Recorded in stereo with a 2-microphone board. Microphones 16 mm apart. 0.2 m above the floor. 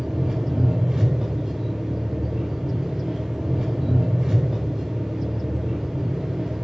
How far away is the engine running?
About 5.5 m.